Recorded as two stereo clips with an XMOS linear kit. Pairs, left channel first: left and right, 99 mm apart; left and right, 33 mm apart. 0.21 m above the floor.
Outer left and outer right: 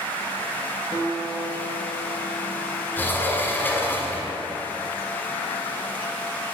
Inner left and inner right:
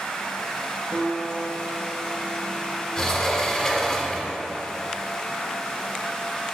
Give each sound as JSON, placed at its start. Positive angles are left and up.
{"t": 0.9, "sound": "a guitar", "side_deg": 35, "distance_m": 0.9}
{"t": 3.0, "sound": "a sliding door", "side_deg": 20, "distance_m": 0.9}